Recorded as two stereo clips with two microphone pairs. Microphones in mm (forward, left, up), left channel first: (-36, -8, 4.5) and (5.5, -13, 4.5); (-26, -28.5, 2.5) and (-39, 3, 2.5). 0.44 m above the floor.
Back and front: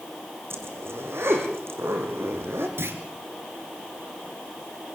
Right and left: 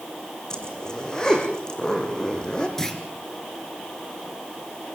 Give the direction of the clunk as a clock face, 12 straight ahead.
12 o'clock.